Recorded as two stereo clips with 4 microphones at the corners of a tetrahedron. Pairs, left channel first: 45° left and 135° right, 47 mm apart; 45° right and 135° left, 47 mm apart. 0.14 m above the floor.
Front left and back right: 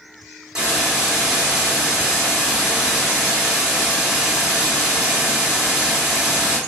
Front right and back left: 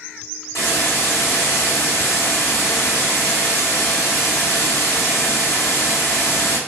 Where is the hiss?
60° right, 1.2 m.